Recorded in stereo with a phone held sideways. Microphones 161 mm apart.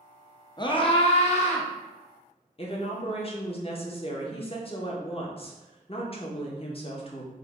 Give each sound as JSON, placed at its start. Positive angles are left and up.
{"t": 0.6, "sound": "a scream", "side_deg": 30, "distance_m": 0.6}
{"t": 2.6, "sound": "a woman speaking", "side_deg": 40, "distance_m": 0.7}